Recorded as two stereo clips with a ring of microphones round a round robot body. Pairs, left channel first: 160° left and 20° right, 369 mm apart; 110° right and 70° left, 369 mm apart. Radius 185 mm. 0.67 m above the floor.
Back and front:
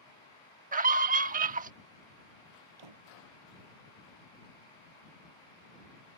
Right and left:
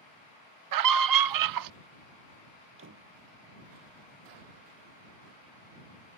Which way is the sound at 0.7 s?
45° left.